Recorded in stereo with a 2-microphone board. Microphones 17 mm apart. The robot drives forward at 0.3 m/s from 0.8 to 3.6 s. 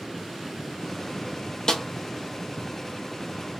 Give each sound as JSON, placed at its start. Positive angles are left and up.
{"t": 1.7, "sound": "a snare drum", "side_deg": 35, "distance_m": 0.7}